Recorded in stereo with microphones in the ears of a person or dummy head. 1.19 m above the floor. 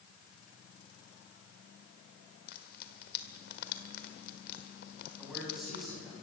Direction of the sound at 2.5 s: 55° left (ahead or behind).